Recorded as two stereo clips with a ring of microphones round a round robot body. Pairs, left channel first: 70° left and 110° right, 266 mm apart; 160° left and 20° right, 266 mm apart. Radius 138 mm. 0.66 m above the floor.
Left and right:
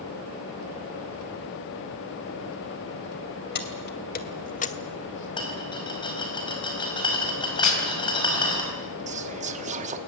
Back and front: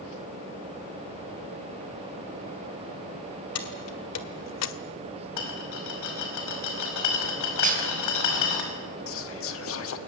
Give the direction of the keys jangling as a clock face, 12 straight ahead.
8 o'clock.